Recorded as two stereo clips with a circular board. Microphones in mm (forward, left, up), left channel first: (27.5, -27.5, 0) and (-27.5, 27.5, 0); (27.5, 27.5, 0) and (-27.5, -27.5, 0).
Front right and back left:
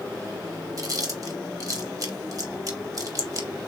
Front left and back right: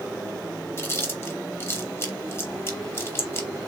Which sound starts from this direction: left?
Chewing, at 0.8 s.